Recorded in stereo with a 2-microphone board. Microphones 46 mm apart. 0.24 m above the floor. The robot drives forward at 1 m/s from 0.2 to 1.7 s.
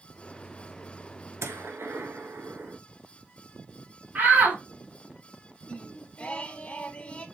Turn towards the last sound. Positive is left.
turn(degrees=25)  # may be behind; listen again after turning